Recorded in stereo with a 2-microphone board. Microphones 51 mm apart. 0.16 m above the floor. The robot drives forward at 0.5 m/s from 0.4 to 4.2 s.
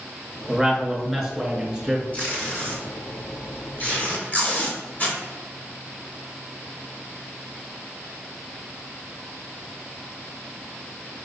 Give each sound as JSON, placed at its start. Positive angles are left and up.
{"t": 0.5, "sound": "a man speaking", "side_deg": 0, "distance_m": 2.0}
{"t": 2.1, "sound": "tape being pulled", "side_deg": 30, "distance_m": 1.9}